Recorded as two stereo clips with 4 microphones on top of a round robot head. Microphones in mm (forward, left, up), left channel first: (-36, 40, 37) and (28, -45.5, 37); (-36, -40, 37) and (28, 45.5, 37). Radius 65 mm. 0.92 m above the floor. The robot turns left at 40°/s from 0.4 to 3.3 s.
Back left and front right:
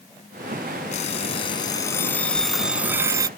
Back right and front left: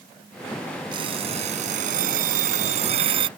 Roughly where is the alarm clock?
Left.